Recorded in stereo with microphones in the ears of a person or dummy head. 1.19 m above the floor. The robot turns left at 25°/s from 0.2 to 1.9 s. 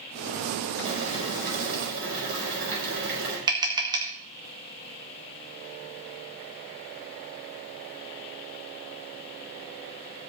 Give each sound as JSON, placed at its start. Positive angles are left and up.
{"t": 0.8, "sound": "boiling", "side_deg": -35, "distance_m": 5.0}
{"t": 3.5, "sound": "tapping", "side_deg": -20, "distance_m": 1.4}